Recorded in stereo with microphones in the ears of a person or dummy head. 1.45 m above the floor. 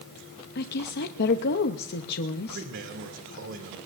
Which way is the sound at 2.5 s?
65° right (ahead or behind).